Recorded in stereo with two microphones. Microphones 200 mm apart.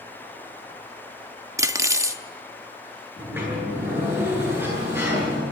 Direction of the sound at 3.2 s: 10° right (ahead or behind).